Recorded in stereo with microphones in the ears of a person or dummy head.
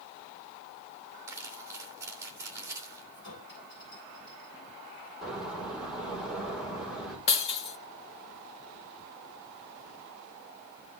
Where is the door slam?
5° right (ahead or behind), 5.5 m.